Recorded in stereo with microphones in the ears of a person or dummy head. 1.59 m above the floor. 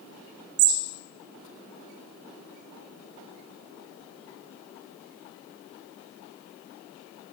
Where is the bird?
80° right, 0.6 m.